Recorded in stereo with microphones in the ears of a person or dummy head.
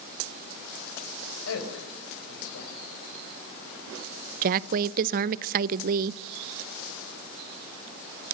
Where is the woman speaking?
50° right (ahead or behind), 0.7 m.